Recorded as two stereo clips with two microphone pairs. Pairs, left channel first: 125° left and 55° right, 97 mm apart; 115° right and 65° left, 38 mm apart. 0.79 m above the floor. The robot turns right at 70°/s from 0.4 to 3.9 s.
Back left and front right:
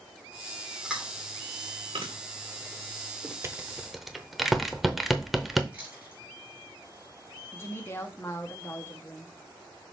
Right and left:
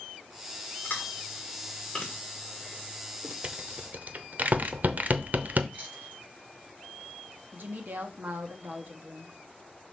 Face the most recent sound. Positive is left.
turn(degrees=70)